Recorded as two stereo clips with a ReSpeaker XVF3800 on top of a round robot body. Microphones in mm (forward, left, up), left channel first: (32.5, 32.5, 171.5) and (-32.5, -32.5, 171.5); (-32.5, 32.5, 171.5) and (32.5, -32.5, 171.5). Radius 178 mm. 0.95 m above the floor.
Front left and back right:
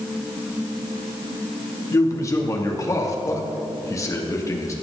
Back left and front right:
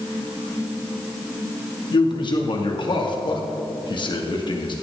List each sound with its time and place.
1.9 s a man speaking: 100° left, 2.5 m